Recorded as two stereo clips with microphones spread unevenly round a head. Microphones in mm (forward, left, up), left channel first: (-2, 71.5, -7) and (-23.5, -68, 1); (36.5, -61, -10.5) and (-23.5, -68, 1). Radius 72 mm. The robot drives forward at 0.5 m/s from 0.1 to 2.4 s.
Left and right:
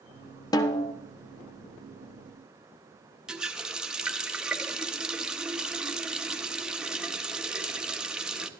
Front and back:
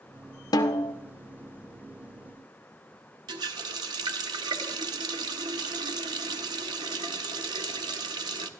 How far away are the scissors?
No scissors in this recording.